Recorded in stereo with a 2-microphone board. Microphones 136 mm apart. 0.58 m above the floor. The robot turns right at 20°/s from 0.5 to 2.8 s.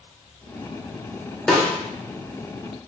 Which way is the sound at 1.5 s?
5° left (ahead or behind).